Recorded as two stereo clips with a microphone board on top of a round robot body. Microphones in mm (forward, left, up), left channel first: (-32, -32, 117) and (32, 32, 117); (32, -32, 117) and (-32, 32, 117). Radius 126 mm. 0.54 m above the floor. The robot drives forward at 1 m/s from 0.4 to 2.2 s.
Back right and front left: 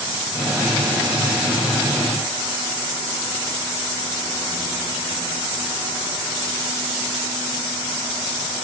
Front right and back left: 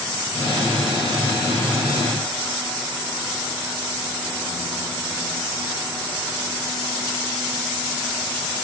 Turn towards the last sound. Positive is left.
No sound to turn to.